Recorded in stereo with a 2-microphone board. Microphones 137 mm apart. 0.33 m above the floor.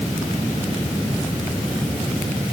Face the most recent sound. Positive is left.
No sound to turn to.